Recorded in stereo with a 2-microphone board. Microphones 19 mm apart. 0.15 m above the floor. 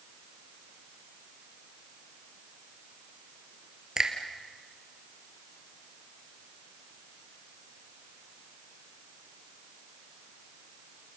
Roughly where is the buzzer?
I don't hear a buzzer.